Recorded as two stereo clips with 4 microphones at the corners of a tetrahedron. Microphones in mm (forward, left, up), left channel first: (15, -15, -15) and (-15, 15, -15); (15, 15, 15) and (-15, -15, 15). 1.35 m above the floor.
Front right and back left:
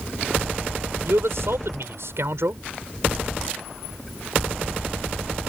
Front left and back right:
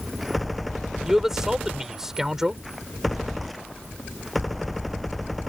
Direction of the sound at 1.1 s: 145° left.